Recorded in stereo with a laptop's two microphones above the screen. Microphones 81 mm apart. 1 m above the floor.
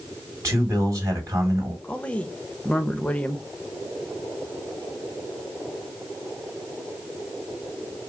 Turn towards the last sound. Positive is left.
turn(degrees=15)  # may be behind; listen again after turning